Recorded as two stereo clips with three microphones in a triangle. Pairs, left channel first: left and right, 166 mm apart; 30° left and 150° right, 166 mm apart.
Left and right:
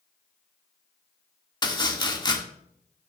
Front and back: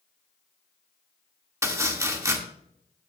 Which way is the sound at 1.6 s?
145° left.